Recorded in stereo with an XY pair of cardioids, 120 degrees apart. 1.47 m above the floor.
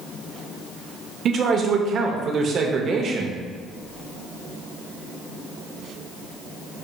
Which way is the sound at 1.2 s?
50° right.